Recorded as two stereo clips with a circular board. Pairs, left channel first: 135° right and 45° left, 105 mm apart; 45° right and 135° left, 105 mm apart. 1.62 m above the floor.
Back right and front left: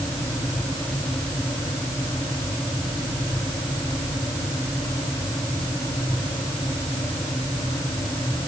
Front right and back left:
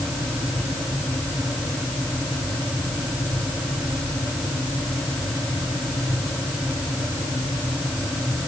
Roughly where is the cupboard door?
No cupboard door in this recording.